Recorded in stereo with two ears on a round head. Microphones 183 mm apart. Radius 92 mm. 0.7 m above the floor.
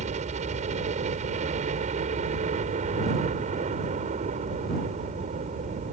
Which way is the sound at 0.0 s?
35° right (ahead or behind).